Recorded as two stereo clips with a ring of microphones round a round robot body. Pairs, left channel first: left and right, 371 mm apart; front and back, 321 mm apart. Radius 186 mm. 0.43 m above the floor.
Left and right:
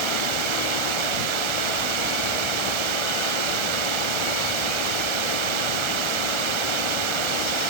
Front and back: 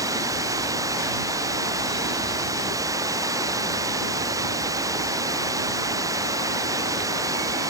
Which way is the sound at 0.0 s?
100° right.